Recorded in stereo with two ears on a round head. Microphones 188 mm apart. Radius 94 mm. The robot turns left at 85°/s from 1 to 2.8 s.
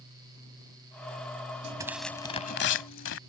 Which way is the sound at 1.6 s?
150° right.